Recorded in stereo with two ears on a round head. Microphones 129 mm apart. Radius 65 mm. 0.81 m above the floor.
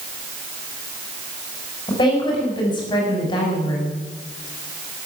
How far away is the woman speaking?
About 6.5 m.